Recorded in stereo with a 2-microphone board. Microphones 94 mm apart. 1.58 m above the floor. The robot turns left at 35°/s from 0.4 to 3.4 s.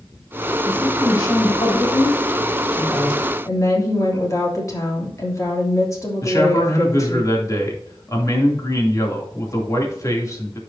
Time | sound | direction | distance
0.7 | a woman speaking | 120° left | 5 m
3.5 | a woman speaking | 35° left (ahead or behind) | 3 m
6.2 | a man speaking | 35° left (ahead or behind) | 2.5 m